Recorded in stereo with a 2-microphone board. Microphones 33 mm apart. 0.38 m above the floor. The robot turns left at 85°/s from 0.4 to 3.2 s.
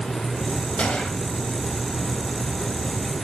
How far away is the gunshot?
About 2 m.